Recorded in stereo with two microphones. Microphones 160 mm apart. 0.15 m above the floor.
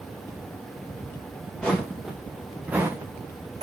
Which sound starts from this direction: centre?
Footsteps, at 1.6 s.